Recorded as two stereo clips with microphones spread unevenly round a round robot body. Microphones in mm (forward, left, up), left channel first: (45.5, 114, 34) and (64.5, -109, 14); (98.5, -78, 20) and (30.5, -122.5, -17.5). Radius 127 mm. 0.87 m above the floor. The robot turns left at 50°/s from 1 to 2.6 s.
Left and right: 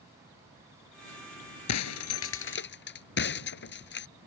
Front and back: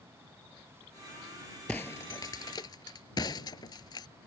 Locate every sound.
1.7 s breaking glass: 105° left; by 4.1 s 60° left